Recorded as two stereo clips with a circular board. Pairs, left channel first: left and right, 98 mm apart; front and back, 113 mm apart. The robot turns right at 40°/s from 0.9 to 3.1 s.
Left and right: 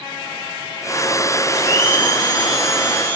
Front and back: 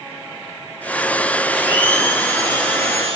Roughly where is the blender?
Left.